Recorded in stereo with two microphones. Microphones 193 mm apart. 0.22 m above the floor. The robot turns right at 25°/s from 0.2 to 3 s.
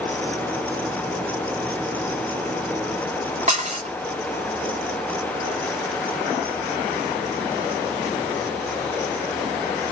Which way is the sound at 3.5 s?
40° right (ahead or behind).